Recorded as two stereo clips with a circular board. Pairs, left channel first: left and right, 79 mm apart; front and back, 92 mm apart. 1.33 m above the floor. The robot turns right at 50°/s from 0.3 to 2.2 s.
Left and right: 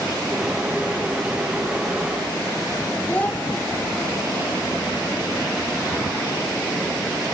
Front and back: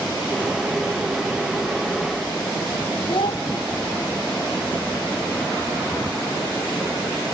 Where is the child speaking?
20° left, 0.7 m.